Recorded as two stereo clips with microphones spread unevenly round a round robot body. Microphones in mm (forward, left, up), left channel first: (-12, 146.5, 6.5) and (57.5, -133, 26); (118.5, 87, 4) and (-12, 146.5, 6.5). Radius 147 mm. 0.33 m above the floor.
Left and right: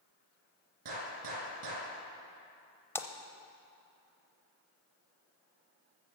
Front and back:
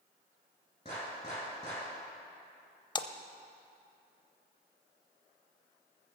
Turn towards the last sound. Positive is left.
turn(degrees=25)